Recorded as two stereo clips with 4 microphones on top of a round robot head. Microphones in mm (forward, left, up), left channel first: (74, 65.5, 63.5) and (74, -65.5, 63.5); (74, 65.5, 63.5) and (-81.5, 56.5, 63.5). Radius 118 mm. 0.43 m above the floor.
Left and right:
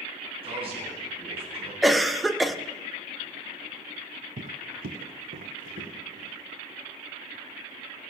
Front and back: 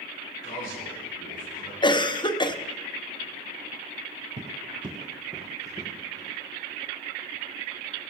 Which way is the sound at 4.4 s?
125° right.